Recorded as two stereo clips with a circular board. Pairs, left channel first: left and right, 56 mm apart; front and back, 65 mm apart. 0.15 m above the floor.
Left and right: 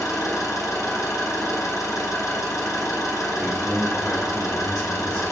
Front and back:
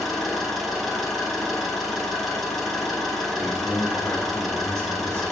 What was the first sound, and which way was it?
An engine running, 90° left.